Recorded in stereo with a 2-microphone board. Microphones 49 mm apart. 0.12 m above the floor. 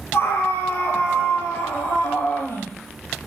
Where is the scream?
60° left (ahead or behind), 3 m; by 2.7 s 65° left (ahead or behind), 4 m.